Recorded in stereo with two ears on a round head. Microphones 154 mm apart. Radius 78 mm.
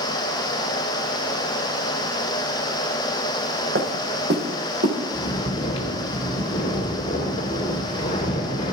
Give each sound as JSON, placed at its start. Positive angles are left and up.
{"t": 3.8, "sound": "footsteps", "side_deg": -60, "distance_m": 3.5}
{"t": 5.1, "sound": "snoring", "side_deg": 25, "distance_m": 2.5}